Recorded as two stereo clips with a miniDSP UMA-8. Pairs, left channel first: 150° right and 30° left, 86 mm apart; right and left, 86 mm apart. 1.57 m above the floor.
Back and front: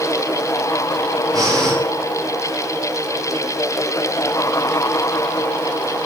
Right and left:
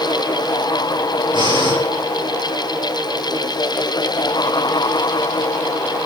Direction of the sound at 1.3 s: 70° left.